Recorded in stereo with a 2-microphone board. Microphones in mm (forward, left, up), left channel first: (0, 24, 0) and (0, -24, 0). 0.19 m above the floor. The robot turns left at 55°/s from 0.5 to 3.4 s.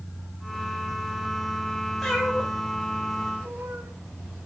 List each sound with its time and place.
2.0 s a cat meowing: 5° left (ahead or behind), 4.5 m; by 3.9 s 70° right (ahead or behind), 4.5 m